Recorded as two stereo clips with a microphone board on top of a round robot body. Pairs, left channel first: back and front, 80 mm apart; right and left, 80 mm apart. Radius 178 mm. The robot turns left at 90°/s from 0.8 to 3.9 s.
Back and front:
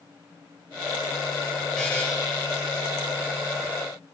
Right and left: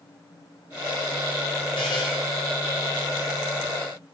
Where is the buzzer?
95° right, 0.7 m; by 2.0 s 120° right, 0.7 m.